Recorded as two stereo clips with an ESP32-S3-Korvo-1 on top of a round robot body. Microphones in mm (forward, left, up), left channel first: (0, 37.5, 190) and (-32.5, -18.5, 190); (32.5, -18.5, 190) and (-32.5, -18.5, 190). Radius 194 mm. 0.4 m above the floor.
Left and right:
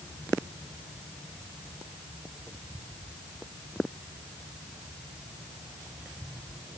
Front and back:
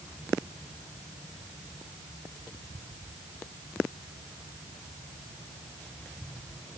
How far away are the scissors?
I don't hear scissors.